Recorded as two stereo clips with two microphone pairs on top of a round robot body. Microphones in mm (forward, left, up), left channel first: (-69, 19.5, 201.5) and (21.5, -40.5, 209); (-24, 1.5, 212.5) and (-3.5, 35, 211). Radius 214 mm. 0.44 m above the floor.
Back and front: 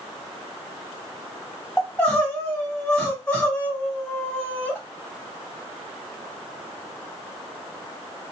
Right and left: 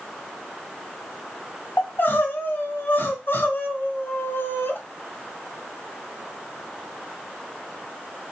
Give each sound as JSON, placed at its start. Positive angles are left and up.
{"t": 1.8, "sound": "crying", "azimuth_deg": -140, "distance_m": 2.0}